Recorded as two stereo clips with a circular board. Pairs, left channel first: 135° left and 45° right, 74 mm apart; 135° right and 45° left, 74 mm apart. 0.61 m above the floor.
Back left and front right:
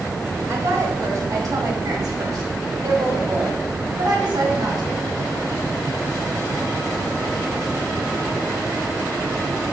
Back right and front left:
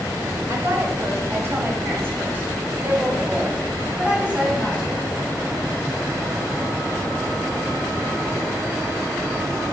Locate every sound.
0.5 s a woman speaking: straight ahead, 3 m; by 5.0 s 35° right, 4.5 m